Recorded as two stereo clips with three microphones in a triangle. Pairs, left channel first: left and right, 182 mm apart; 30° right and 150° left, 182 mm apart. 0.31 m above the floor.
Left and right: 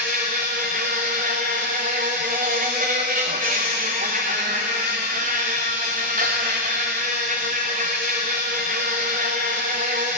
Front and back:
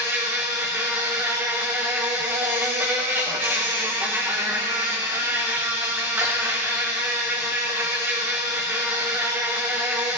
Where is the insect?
130° right, 2.5 m.